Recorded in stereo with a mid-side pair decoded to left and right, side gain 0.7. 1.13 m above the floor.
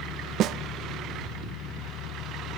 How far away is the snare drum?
About 0.7 m.